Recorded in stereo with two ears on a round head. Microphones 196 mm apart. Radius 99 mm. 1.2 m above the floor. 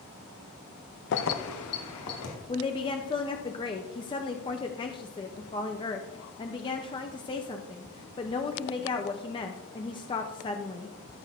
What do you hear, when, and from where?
1.1 s keys jangling: 50° left (ahead or behind), 0.6 m; by 2.4 s 80° left, 2 m
2.5 s a woman speaking: 20° left (ahead or behind), 0.6 m